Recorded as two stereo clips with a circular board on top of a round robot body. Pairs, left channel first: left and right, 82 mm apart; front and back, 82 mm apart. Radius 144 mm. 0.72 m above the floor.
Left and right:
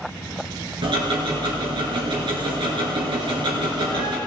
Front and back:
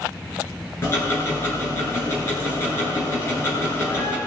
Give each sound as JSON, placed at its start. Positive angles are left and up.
{"t": 0.8, "sound": "ticking", "azimuth_deg": -60, "distance_m": 2.5}